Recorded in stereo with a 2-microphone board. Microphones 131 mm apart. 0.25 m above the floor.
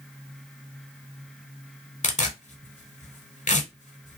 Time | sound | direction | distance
2.0 | tearing paper | 70° left (ahead or behind) | 0.7 m